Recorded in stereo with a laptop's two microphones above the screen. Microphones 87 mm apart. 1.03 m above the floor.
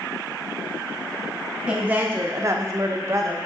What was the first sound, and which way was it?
A woman speaking, 5° right (ahead or behind).